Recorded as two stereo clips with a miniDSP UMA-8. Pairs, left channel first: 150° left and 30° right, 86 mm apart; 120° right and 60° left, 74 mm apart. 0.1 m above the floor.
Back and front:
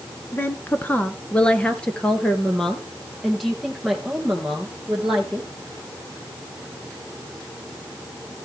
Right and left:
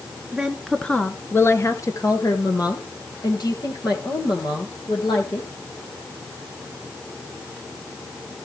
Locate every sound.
0.3 s a woman speaking: 130° left, 1.2 m; by 5.5 s 115° right, 4.5 m